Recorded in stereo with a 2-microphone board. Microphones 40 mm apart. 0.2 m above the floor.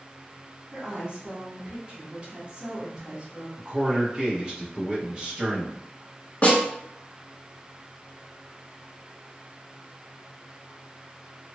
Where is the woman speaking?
30° right (ahead or behind), 1.4 m.